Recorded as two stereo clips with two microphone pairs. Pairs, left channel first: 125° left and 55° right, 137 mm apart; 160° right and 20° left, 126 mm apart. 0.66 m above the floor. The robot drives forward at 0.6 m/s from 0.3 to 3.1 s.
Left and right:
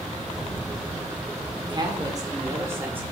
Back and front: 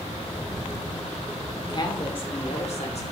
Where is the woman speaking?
110° right, 1.6 m; by 3.0 s 135° right, 2 m.